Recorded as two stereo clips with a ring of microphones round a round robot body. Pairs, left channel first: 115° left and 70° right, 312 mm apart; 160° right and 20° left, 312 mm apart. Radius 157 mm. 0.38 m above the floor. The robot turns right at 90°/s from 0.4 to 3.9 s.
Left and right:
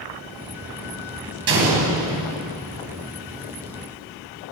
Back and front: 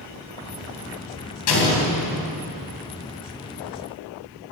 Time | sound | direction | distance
1.5 | an explosion | 120° right | 3 m